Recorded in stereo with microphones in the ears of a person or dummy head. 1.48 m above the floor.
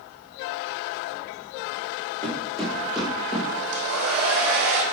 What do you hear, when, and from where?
2.2 s footsteps: 5° left (ahead or behind), 3.5 m; by 3.5 s centre (ahead or behind), 4 m
3.7 s a hair dryer: 75° right (ahead or behind), 1.7 m